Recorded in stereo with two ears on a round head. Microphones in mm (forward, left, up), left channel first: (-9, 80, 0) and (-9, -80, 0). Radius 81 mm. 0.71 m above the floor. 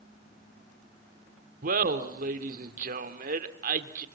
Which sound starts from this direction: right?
Laughter, at 1.6 s.